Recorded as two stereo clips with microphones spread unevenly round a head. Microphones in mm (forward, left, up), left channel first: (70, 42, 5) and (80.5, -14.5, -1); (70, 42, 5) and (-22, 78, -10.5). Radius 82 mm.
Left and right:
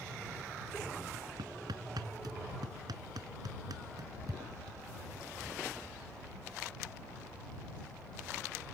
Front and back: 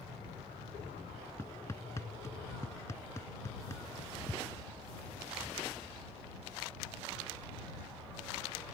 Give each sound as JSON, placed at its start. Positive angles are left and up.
{"t": 1.4, "sound": "hammering", "azimuth_deg": -90}